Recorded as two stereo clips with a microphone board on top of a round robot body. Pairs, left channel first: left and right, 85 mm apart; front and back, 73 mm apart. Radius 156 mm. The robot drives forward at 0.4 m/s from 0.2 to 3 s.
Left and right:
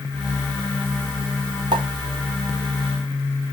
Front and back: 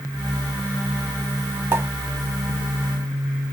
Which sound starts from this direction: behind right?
A pop, at 1.7 s.